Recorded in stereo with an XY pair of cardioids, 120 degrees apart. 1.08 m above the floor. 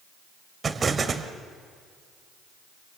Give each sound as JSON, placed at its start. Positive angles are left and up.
{"t": 0.6, "sound": "an explosion", "azimuth_deg": -30, "distance_m": 1.9}